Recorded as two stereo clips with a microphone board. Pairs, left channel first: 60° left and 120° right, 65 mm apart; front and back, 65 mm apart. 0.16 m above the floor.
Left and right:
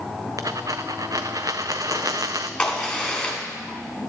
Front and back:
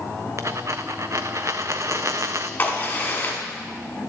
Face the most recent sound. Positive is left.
turn(degrees=-5)